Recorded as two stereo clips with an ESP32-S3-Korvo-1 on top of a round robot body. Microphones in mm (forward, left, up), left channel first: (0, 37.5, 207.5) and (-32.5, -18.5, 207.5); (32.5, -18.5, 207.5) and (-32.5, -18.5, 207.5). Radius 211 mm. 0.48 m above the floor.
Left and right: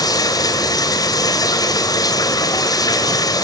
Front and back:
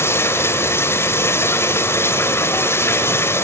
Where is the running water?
50° left, 2 m.